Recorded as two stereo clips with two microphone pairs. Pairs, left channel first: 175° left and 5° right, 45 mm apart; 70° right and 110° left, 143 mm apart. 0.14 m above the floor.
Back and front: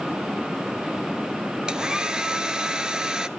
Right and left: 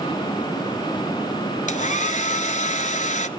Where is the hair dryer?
80° right, 1.0 m.